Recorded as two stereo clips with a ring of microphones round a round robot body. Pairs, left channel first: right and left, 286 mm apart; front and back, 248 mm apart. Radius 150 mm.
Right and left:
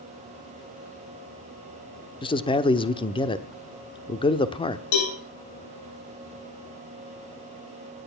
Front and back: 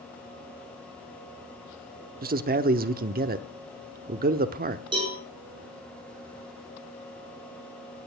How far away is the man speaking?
About 0.9 m.